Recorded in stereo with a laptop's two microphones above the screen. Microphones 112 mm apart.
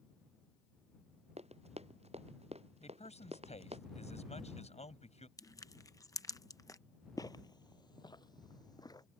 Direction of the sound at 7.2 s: 35° left (ahead or behind).